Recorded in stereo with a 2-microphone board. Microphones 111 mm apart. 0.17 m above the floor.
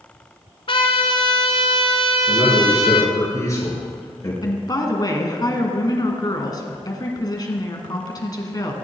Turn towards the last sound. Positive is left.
turn(degrees=35)  # may be behind; listen again after turning